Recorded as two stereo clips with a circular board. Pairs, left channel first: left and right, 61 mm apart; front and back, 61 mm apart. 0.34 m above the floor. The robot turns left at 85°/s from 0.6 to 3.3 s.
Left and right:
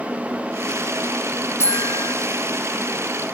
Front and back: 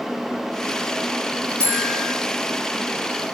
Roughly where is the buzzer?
Behind left.